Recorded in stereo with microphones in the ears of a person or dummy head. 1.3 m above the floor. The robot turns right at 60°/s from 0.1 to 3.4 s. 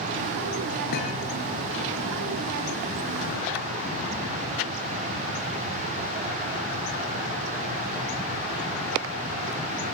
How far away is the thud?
About 4.5 m.